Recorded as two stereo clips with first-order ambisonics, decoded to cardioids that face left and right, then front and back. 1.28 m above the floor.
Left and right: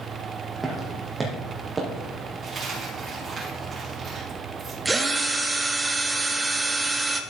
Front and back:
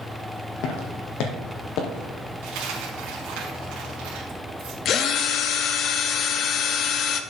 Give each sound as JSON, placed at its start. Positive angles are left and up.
{"t": 0.6, "sound": "footsteps", "azimuth_deg": -10, "distance_m": 1.9}
{"t": 2.4, "sound": "a dropped coin", "azimuth_deg": -155, "distance_m": 3.5}
{"t": 4.8, "sound": "a drill", "azimuth_deg": -15, "distance_m": 0.7}